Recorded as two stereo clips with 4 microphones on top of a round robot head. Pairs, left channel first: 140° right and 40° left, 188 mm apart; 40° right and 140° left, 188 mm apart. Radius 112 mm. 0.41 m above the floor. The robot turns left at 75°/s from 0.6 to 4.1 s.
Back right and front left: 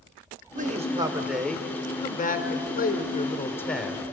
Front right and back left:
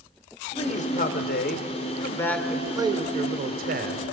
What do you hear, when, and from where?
0.6 s a man speaking: 10° left, 1.6 m; by 4.0 s 115° left, 1.6 m